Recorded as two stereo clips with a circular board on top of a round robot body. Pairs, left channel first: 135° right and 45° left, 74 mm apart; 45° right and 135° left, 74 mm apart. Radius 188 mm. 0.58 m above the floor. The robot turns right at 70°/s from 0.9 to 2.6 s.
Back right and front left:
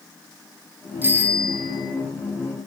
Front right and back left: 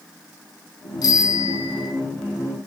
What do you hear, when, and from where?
1.0 s a bicycle bell: 15° right, 5.5 m; by 1.9 s 45° left, 5.5 m